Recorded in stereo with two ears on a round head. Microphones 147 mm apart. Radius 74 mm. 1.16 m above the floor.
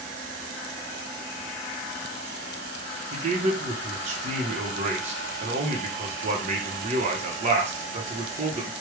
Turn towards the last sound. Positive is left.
turn(degrees=-45)  # may be behind; listen again after turning